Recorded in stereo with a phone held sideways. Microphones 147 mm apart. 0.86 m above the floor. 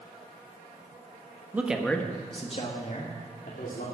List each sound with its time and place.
1.5 s a man speaking: 15° right (ahead or behind), 1.4 m; by 3.9 s 75° left (ahead or behind), 3 m